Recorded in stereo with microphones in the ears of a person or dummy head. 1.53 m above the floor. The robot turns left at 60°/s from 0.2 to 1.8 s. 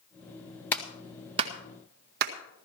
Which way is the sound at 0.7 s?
5° left (ahead or behind).